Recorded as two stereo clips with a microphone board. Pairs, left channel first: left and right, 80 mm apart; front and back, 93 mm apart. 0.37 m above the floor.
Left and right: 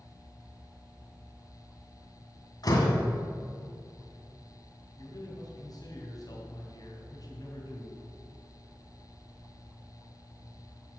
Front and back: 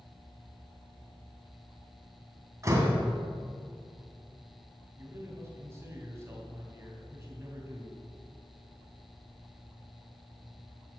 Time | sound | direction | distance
2.6 | a door slam | 125° left | 2 m
5.0 | a man speaking | 120° left | 3 m